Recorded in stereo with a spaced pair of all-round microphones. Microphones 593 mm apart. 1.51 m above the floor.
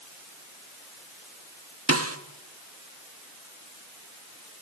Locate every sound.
1.9 s a snare drum: 25° right (ahead or behind), 1.2 m